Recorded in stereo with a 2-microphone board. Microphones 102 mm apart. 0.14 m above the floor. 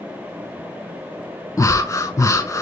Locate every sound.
1.6 s breathing: 30° left (ahead or behind), 1.0 m